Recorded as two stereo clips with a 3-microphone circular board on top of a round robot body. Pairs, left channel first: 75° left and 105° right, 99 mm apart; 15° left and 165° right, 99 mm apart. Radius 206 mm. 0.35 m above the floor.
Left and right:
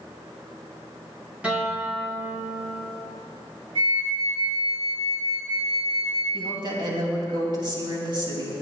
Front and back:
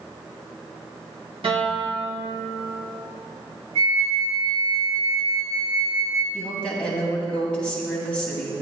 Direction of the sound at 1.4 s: 175° left.